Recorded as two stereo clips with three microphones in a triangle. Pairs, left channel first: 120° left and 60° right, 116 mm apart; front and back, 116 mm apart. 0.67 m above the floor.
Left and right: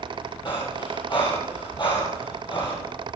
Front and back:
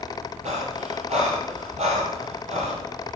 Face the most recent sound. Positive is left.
turn(degrees=165)